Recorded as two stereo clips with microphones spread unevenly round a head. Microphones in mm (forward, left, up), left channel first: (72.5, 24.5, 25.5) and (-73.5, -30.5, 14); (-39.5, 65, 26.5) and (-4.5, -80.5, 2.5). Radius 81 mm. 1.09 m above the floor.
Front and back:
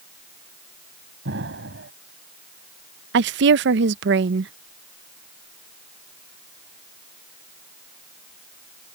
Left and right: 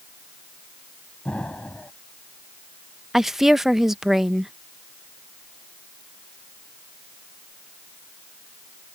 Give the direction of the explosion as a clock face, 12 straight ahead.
6 o'clock.